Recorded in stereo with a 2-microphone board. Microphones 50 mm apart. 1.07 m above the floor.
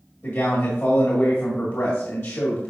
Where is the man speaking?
70° left (ahead or behind), 1.7 m.